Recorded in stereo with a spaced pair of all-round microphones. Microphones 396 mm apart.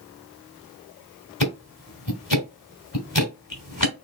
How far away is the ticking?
About 2 m.